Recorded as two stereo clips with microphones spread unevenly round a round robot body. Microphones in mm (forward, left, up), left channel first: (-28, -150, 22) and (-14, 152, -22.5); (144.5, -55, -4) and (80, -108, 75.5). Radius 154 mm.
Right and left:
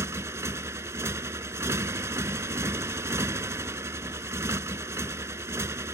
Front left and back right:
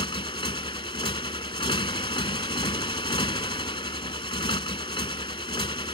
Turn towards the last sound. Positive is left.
turn(degrees=5)